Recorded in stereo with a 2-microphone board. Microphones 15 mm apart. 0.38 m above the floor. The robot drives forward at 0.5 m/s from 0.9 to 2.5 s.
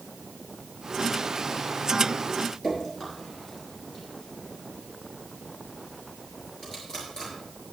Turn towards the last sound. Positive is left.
turn(degrees=40)  # may be behind; listen again after turning